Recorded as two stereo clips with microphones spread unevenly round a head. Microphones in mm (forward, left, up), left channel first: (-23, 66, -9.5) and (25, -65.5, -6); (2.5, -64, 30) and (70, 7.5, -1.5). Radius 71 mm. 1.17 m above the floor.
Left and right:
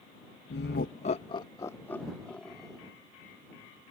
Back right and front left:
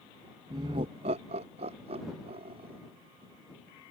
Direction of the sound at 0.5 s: 105° left.